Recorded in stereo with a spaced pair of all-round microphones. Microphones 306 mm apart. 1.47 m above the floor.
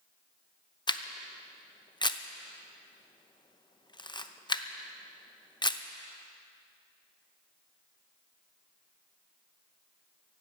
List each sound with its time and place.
0.9 s a camera shutter: 15° left (ahead or behind), 0.7 m